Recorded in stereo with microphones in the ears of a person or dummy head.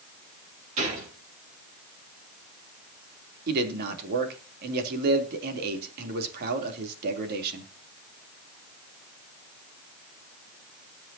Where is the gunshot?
40° right (ahead or behind), 7 m.